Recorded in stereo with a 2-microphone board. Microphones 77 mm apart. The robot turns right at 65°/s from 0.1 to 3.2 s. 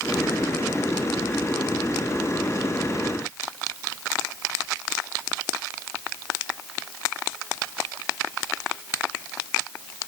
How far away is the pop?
No pop in this recording.